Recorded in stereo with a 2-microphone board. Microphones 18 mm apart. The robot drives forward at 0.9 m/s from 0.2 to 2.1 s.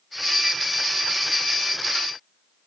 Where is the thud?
I don't hear a thud.